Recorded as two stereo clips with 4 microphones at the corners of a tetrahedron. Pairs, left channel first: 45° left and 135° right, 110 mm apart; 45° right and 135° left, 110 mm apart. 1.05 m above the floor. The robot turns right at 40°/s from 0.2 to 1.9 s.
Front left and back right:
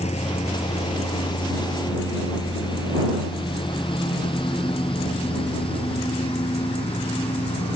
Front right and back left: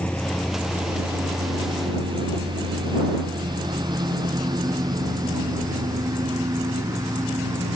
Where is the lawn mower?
35° left; by 7.8 s 75° left.